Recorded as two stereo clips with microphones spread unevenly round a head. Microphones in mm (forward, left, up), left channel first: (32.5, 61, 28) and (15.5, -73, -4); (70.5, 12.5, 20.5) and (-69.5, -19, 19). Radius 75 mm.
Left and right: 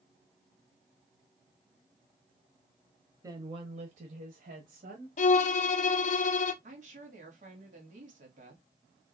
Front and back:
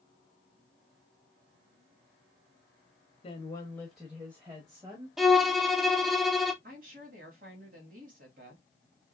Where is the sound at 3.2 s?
35° right, 0.8 m; by 5.1 s 105° right, 1.7 m.